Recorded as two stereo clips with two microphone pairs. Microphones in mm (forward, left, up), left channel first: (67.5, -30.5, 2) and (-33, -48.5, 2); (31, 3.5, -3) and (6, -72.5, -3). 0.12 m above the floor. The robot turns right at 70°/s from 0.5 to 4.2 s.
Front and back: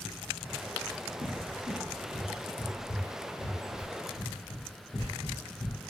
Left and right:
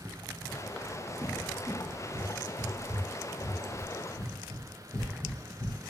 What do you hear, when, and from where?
1.2 s a cupboard door: 170° right, 1.2 m; by 5.9 s 40° left, 1.2 m